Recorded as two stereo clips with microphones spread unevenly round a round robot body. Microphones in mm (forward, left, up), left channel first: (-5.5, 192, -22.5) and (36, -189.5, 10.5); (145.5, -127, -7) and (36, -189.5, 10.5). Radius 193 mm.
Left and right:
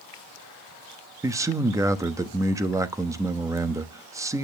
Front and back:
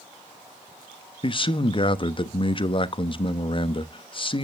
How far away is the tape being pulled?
No tape being pulled in this recording.